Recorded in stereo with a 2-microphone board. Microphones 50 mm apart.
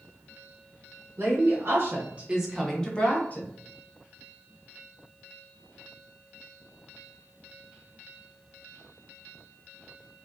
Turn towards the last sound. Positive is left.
turn(degrees=35)  # may be behind; listen again after turning